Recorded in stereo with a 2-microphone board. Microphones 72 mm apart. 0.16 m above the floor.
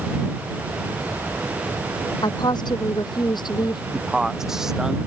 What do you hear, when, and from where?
2.2 s a woman speaking: 80° left; by 3.8 s 75° left (ahead or behind)
3.9 s a man speaking: 5° right (ahead or behind)